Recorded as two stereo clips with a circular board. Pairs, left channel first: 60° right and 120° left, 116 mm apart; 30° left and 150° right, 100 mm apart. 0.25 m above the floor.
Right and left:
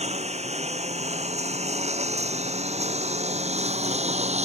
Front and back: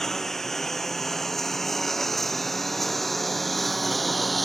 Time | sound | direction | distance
0.0 | a lawn mower | 115° left | ?